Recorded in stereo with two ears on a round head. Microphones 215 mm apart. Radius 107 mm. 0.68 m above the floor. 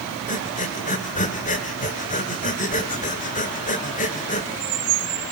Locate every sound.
0.3 s breathing: 35° left (ahead or behind), 1.8 m